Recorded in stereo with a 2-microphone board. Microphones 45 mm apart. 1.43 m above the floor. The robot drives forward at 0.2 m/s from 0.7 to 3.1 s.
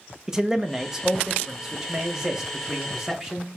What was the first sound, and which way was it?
A man speaking, 15° right (ahead or behind).